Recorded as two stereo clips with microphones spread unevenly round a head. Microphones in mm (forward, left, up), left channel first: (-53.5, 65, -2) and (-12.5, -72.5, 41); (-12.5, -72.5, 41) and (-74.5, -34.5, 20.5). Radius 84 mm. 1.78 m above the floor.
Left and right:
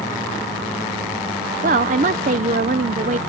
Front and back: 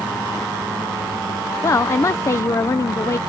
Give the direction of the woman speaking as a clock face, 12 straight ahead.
2 o'clock.